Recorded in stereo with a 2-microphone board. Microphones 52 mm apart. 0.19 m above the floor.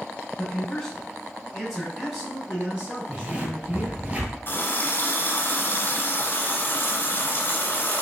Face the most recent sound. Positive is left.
turn(degrees=40)  # may be behind; listen again after turning